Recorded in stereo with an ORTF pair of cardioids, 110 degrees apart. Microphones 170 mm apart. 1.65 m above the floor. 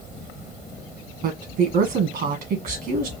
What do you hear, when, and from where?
1.2 s a woman speaking: 65° right, 1.6 m